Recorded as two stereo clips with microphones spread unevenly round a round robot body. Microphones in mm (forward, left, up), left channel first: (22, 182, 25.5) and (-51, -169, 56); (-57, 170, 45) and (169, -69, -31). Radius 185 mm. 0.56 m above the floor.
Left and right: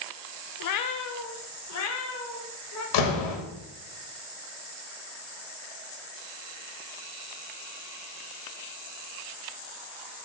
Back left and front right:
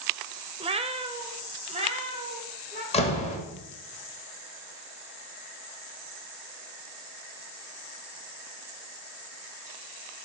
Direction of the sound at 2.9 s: 60° left.